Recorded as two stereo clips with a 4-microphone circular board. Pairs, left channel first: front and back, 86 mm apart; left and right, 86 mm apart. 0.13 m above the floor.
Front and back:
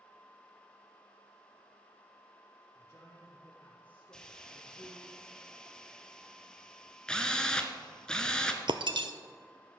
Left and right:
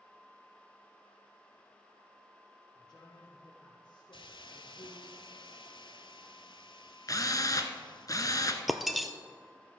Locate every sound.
2.8 s a man speaking: 55° left, 4 m; by 5.1 s 90° left, 3.5 m
4.1 s a hiss: 80° left, 0.6 m
7.1 s a drill: 75° left, 0.8 m
8.7 s breaking glass: straight behind, 0.6 m